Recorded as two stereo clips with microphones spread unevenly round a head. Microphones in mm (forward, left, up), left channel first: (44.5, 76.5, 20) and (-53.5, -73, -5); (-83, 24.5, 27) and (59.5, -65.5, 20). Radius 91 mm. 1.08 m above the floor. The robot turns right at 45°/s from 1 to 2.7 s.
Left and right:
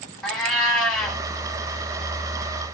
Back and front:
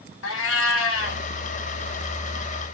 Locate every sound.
0.2 s a cat meowing: 140° left, 1.1 m; by 1.2 s 150° left, 1.1 m